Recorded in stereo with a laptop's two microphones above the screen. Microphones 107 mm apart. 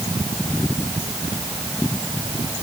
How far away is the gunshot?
No gunshot in this recording.